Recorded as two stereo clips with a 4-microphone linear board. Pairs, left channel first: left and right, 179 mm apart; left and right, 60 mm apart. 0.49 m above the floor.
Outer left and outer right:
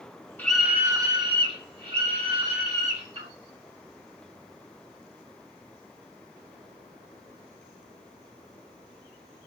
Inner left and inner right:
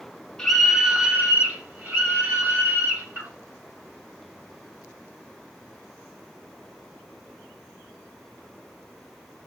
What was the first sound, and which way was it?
A scream, 10° left (ahead or behind).